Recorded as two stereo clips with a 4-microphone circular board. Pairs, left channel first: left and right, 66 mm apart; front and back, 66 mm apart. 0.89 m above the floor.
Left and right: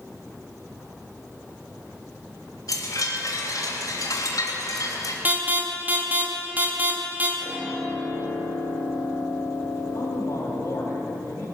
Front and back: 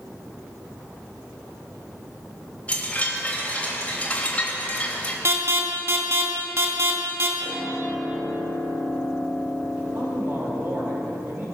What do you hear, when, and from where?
2.7 s a chime: 70° left, 3 m
5.2 s an alarm: 145° right, 2 m
7.4 s a piano: 135° right, 5.5 m
9.9 s a man speaking: 130° left, 5 m